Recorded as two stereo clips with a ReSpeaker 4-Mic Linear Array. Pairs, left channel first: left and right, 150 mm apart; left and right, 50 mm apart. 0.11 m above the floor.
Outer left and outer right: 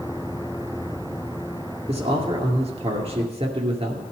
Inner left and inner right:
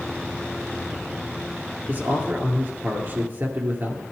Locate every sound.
1.9 s a man speaking: 45° right (ahead or behind), 2.5 m